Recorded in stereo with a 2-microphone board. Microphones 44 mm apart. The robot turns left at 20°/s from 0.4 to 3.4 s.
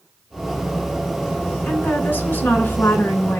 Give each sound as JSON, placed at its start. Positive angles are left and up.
{"t": 1.6, "sound": "a woman speaking", "azimuth_deg": 125, "distance_m": 2.0}